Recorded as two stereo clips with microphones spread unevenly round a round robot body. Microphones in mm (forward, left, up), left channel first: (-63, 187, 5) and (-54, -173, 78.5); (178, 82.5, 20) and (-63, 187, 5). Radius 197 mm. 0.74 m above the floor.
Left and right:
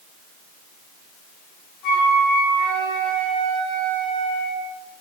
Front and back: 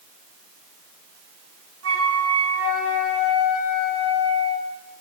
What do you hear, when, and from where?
1.8 s a flute: 130° left, 4.5 m